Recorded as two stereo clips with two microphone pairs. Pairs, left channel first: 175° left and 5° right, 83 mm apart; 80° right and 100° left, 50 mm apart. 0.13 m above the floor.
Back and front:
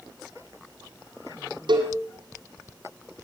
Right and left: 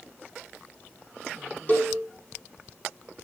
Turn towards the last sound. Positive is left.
turn(degrees=-25)